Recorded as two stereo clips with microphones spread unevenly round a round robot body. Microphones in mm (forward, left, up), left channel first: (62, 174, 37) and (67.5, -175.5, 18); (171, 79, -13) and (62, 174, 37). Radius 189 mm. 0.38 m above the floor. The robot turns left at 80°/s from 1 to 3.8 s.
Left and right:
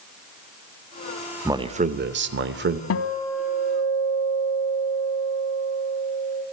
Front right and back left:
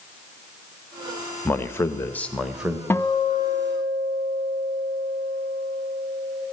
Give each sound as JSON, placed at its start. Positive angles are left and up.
{"t": 1.4, "sound": "a man speaking", "azimuth_deg": -15, "distance_m": 1.0}
{"t": 2.9, "sound": "a guitar", "azimuth_deg": 40, "distance_m": 0.9}